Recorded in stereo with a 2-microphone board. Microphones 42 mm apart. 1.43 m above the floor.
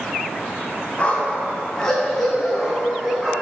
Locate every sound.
1.0 s a dog barking: 30° left (ahead or behind), 2 m; by 3.3 s 10° right (ahead or behind), 3 m